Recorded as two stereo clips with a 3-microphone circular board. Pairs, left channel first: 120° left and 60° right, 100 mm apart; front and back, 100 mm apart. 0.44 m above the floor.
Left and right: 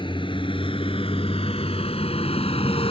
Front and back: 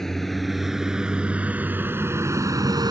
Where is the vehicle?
85° left; by 2.9 s 135° left.